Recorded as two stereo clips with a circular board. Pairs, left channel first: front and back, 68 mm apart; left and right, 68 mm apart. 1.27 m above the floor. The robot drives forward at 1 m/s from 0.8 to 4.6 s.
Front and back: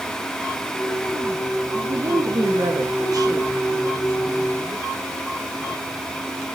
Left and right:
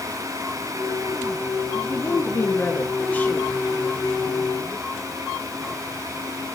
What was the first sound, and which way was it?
A woman speaking, 135° left.